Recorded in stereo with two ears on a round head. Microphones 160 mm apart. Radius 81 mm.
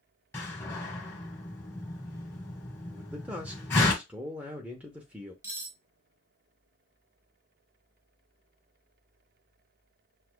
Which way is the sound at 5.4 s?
20° right (ahead or behind).